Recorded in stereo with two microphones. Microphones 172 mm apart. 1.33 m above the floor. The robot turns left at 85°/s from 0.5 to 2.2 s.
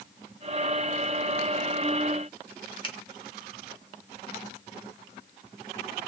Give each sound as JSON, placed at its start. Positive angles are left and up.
{"t": 2.8, "sound": "a finger snap", "side_deg": 30, "distance_m": 1.0}